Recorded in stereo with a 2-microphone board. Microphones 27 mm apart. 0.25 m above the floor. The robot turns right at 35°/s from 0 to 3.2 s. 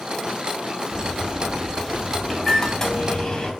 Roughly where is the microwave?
Ahead right.